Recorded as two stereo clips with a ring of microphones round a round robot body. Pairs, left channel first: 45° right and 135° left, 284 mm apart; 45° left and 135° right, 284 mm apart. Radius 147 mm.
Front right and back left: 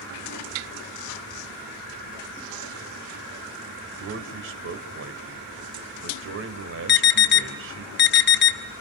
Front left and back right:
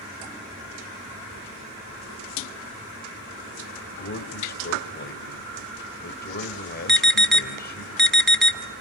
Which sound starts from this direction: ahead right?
An alarm, at 6.9 s.